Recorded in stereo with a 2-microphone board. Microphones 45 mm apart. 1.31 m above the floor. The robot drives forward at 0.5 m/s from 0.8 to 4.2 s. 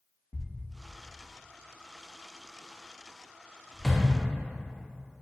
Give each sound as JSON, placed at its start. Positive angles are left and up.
{"t": 0.3, "sound": "a thud", "side_deg": 40, "distance_m": 0.7}